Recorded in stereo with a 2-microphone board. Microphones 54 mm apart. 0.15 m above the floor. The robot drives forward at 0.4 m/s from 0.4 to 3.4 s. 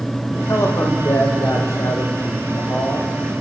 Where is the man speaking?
55° left (ahead or behind), 8 m; by 3.1 s 60° left (ahead or behind), 7.5 m.